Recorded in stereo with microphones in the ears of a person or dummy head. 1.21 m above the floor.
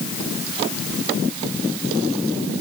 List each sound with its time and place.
Only background noise.